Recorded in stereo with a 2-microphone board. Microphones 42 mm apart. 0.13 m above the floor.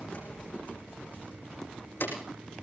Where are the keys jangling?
25° left (ahead or behind), 6 m; by 2.2 s 55° left (ahead or behind), 5 m.